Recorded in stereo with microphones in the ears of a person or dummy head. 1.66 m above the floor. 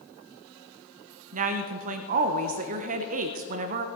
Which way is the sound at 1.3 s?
40° right (ahead or behind).